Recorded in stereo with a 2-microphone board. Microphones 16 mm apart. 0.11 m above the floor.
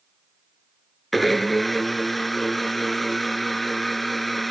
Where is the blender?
5° left (ahead or behind), 0.9 m.